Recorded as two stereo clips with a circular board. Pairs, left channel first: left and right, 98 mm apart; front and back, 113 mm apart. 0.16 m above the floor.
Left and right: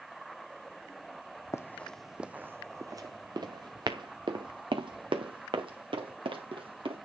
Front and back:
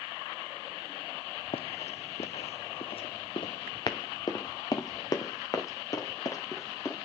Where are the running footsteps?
30° left, 0.5 m; by 7.0 s 65° right, 3 m.